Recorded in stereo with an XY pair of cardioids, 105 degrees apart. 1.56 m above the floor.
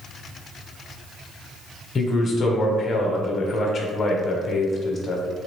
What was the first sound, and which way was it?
A man speaking, 40° left.